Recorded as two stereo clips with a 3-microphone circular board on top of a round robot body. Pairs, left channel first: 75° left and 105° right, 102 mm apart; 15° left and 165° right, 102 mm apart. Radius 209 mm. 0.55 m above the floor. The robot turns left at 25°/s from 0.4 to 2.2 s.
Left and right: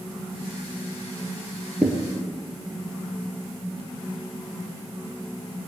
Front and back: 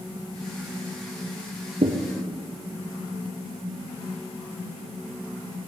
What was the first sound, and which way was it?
A thud, 170° left.